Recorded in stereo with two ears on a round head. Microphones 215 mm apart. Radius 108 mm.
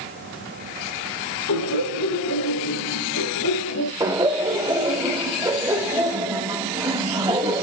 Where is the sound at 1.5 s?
75° left (ahead or behind), 7 m; by 3.9 s 70° left (ahead or behind), 5 m.